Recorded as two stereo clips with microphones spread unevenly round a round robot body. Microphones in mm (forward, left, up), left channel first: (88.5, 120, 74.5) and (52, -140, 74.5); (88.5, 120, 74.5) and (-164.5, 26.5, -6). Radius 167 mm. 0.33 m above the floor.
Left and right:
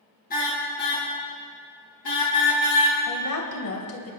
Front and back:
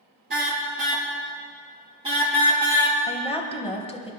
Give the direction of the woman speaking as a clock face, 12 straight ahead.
9 o'clock.